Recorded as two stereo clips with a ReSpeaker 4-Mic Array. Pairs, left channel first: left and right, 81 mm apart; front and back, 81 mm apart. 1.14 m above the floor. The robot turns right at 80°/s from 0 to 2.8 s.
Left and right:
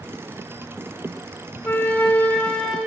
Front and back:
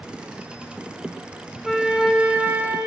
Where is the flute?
90° left, 1.0 m; by 2.8 s straight behind, 1.0 m.